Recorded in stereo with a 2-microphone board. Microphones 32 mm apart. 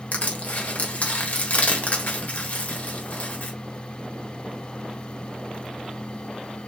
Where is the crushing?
55° left (ahead or behind), 1.3 m.